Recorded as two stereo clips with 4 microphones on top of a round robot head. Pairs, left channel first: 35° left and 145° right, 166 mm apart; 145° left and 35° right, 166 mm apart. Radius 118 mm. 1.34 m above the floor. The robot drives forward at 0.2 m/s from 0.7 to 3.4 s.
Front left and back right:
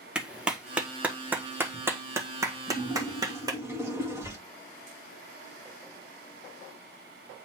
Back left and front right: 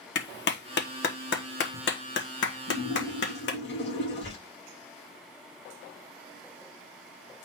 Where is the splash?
140° left, 1.9 m.